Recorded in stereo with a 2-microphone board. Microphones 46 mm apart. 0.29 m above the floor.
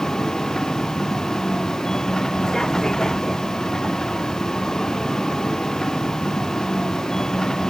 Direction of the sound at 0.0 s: 10° left (ahead or behind).